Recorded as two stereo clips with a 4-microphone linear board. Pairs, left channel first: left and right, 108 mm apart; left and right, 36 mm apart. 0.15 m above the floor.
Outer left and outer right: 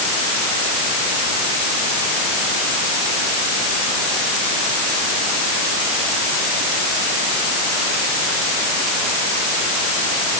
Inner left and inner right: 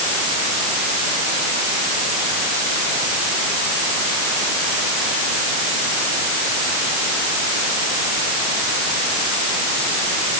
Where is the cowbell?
I don't hear a cowbell.